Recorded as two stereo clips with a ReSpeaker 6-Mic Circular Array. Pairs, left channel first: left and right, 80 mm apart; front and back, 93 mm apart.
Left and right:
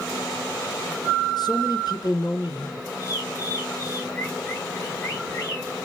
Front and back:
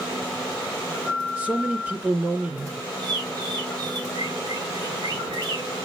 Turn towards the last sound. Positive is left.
turn(degrees=140)